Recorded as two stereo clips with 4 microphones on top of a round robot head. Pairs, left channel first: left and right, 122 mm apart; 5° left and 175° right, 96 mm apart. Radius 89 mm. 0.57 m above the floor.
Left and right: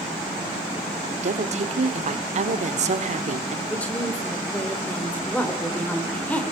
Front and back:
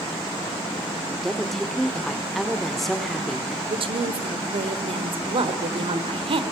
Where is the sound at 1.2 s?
85° right, 1.6 m.